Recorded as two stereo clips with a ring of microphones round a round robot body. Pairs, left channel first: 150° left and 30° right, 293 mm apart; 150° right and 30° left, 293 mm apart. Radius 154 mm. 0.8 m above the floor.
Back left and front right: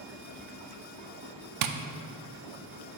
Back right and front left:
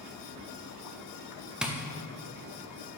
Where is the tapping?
55° right, 0.6 m.